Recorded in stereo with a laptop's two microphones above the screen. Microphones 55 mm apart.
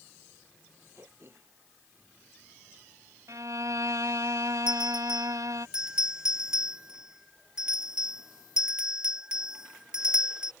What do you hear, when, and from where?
0.9 s throat clearing: 50° right (ahead or behind)
3.3 s a violin: 80° right
4.7 s a bell: 15° right (ahead or behind)